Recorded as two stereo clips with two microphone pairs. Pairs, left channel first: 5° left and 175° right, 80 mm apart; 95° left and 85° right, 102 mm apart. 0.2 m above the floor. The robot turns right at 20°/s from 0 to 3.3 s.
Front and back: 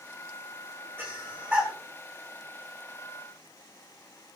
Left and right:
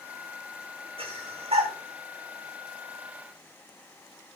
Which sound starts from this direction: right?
Breathing, at 1.0 s.